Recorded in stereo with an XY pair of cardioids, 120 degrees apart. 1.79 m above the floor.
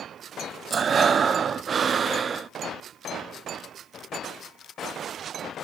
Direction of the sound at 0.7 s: 35° right.